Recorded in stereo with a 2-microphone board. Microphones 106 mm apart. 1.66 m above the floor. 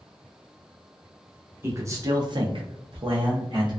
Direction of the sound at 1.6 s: 25° right (ahead or behind).